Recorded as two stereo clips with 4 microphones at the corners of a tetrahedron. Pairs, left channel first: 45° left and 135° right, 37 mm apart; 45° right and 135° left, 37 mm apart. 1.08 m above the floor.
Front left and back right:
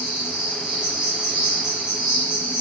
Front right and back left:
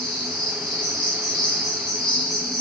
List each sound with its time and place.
0.0 s an insect: 105° right, 1.4 m